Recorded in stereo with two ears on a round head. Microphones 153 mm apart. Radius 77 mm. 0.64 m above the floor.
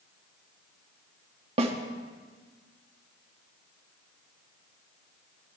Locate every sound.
1.6 s a snare drum: 35° right (ahead or behind), 1.2 m